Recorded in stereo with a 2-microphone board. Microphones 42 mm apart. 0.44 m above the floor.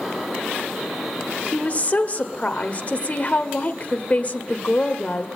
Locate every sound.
1.5 s a woman speaking: 35° left (ahead or behind), 1.5 m